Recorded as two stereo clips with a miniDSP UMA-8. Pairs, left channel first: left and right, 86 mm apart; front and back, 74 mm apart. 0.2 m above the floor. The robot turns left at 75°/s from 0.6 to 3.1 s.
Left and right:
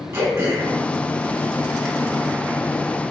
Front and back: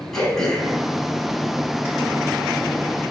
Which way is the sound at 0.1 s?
75° right.